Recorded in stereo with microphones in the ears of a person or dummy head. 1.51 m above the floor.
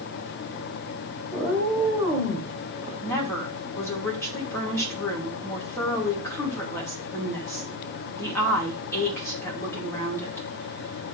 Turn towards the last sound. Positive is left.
turn(degrees=15)  # may be behind; listen again after turning